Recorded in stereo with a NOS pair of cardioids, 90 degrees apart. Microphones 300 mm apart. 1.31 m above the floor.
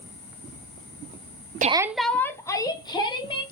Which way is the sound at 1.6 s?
30° right.